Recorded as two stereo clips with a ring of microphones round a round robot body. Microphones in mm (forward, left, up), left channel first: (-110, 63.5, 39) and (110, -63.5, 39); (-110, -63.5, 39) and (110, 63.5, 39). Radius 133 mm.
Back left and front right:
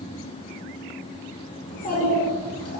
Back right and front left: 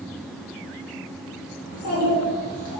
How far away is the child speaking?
About 2.5 m.